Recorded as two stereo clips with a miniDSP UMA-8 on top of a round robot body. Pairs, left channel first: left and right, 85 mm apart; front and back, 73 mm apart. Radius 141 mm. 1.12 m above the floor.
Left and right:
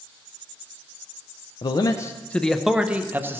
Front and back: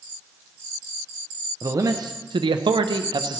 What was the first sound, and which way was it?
A man speaking, 125° left.